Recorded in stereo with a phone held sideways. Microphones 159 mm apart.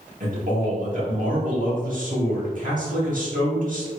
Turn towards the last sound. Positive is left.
turn(degrees=-55)  # may be behind; listen again after turning